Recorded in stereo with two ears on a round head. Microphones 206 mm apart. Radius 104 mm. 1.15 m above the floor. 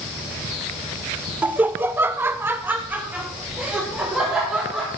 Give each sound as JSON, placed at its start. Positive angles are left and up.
{"t": 1.4, "sound": "laughter", "side_deg": -5, "distance_m": 0.7}